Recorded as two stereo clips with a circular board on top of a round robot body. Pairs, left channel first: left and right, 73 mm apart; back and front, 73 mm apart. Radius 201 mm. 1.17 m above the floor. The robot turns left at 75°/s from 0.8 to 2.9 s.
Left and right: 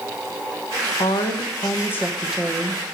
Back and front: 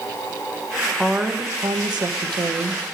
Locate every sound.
0.9 s a woman speaking: 100° left, 1.0 m; by 2.8 s 40° right, 1.0 m